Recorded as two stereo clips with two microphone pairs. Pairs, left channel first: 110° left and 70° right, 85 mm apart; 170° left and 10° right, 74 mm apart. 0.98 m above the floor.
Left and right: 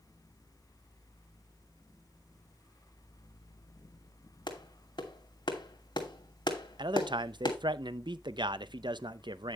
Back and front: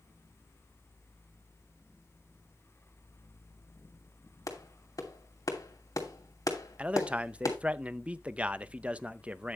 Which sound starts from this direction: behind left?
A clap, at 4.5 s.